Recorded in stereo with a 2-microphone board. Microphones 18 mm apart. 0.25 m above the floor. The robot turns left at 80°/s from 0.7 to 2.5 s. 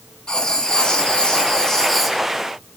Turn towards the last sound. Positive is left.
turn(degrees=-20)